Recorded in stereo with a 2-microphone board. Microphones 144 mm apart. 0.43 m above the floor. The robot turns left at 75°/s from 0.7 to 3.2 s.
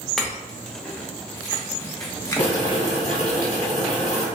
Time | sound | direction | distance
0.2 | a clink | 5° left (ahead or behind) | 0.7 m
2.4 | boiling | 170° left | 1.4 m